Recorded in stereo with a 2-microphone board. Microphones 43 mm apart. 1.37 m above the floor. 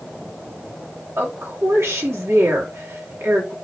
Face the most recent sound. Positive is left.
turn(degrees=-85)